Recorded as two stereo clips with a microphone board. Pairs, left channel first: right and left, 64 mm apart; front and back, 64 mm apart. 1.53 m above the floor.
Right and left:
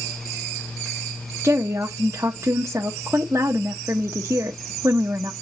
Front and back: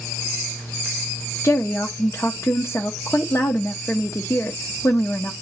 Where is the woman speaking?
45° left, 0.7 m.